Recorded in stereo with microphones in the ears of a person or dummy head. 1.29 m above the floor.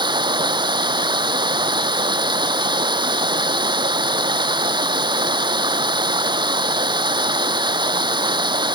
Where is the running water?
25° right (ahead or behind).